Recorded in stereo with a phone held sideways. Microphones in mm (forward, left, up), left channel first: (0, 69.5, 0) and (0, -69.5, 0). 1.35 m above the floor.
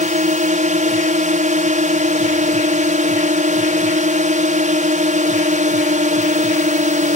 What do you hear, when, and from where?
0.0 s a drone: 65° right (ahead or behind)